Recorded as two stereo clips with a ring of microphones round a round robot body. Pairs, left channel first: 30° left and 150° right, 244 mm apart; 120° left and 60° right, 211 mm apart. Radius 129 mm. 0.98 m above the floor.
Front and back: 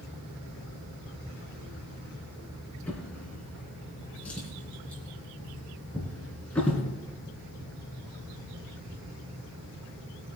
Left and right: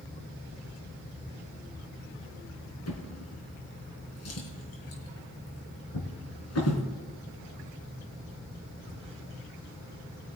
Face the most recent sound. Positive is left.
turn(degrees=115)